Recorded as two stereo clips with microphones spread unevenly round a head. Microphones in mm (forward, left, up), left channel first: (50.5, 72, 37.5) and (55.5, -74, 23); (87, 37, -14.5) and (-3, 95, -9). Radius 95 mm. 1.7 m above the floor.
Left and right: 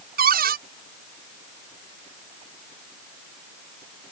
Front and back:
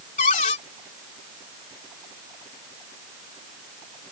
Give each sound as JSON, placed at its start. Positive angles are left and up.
{"t": 0.2, "sound": "a cupboard door", "azimuth_deg": -75}